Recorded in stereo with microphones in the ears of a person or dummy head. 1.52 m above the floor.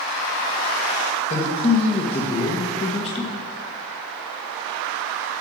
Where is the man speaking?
35° left (ahead or behind), 1.5 m.